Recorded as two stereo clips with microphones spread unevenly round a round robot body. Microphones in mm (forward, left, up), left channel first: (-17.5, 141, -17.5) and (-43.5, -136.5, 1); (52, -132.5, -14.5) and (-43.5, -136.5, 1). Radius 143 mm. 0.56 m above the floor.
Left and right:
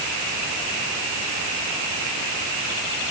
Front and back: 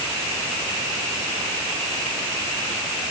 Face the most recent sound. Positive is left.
No sound to turn to.